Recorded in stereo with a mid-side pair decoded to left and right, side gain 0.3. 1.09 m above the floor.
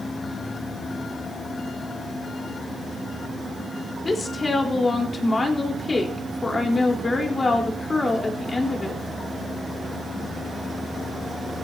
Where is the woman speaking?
40° left, 4 m.